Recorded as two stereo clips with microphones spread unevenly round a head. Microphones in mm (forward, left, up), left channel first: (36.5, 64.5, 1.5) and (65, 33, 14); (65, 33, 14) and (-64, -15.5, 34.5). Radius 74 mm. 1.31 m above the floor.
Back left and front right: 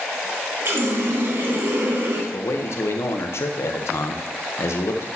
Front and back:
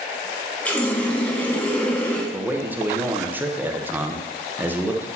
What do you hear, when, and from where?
0.7 s a running tap: 65° right, 1.2 m
2.3 s a man speaking: 120° left, 1.1 m